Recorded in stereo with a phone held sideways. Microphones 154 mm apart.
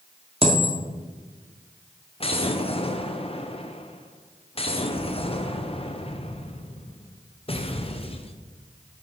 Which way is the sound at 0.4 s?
40° right (ahead or behind).